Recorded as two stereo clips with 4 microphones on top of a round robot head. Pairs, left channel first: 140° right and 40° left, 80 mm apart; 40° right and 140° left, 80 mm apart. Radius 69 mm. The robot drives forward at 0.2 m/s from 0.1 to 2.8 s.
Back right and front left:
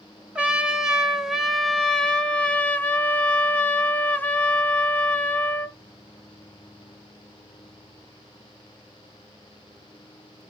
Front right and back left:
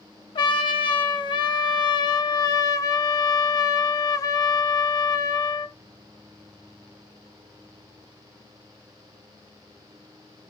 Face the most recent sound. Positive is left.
turn(degrees=-75)